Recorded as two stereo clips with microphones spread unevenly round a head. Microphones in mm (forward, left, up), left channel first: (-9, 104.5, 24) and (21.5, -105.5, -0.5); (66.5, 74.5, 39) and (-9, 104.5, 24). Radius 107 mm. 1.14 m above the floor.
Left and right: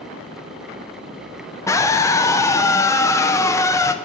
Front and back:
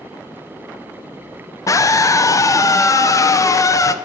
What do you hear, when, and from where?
1.7 s a scream: 20° left, 0.5 m